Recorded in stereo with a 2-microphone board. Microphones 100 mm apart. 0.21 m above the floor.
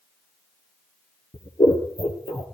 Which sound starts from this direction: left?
Scissors, at 1.3 s.